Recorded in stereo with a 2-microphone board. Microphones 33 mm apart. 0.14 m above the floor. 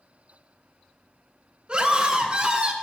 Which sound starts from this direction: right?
A scream, at 1.7 s.